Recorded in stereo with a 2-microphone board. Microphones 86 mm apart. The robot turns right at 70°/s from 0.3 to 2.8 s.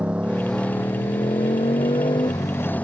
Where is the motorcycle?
15° right; by 2.8 s 160° left.